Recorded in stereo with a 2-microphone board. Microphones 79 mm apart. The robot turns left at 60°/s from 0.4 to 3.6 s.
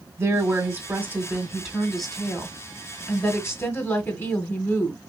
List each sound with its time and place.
0.2 s a woman speaking: 85° right, 1.7 m; by 5.0 s 80° left, 1.7 m